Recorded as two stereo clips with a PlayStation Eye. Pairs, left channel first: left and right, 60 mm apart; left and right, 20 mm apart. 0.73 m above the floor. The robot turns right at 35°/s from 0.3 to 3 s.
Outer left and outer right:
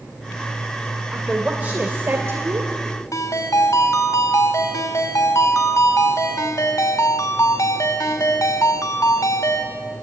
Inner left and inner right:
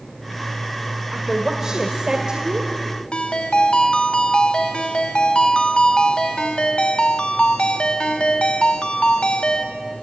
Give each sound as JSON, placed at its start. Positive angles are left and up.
{"t": 1.1, "sound": "a woman speaking", "azimuth_deg": -175, "distance_m": 2.5}
{"t": 3.1, "sound": "a ringtone", "side_deg": 65, "distance_m": 3.0}